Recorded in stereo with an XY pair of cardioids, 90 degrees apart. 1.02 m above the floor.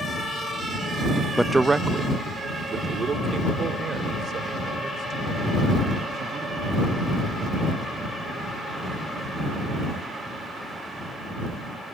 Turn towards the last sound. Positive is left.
turn(degrees=-65)